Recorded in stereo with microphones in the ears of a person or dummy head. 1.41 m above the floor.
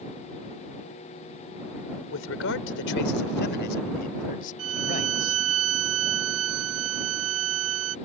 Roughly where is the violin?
Right.